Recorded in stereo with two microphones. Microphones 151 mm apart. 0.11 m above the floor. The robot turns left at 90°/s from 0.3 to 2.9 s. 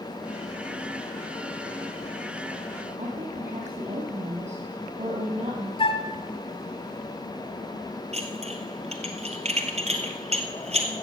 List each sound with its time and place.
3.0 s a woman speaking: 45° right (ahead or behind), 3.5 m
5.8 s a flute: 35° left (ahead or behind), 0.9 m
8.1 s dishes clattering: 45° right (ahead or behind), 1.5 m